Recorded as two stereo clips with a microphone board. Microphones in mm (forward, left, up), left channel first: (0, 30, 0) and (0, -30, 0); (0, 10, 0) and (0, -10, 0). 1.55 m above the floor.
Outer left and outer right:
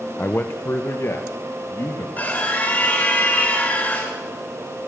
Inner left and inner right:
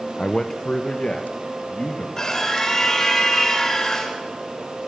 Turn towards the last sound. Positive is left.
turn(degrees=30)  # may be behind; listen again after turning